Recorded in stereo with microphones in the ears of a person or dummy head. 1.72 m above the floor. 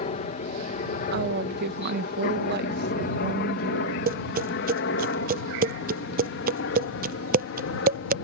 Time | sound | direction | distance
0.0 | a helicopter | 40° left (ahead or behind) | ?
1.1 | a woman speaking | 55° right (ahead or behind) | ?
4.1 | tapping | 45° right (ahead or behind) | ?